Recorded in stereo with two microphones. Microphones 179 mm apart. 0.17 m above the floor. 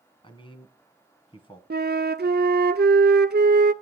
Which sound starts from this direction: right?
A flute, at 1.7 s.